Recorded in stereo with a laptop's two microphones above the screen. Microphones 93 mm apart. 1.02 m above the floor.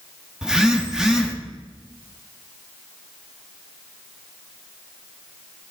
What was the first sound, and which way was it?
A phone buzzing, 5° right (ahead or behind).